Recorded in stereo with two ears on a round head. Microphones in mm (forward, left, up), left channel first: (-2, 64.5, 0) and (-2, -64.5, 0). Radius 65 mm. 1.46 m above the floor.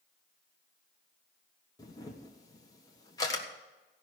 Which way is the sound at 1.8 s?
25° left (ahead or behind).